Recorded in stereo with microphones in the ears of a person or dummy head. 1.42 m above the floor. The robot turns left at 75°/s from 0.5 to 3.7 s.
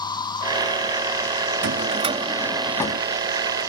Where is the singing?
I don't hear singing.